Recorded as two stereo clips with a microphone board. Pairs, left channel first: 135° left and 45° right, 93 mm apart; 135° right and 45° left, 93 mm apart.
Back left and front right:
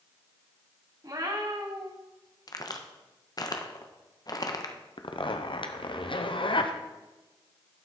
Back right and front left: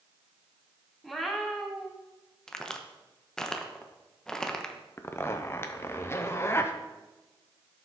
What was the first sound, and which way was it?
A cat meowing, 50° right.